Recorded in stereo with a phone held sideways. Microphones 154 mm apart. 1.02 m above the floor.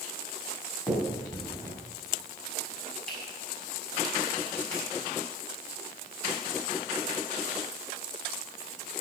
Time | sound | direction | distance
0.9 | a finger snap | 5° left (ahead or behind) | 6.5 m